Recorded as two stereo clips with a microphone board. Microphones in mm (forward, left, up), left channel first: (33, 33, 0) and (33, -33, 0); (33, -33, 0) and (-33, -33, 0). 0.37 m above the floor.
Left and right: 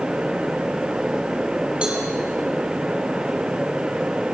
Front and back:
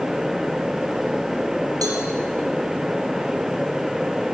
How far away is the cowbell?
About 7.5 m.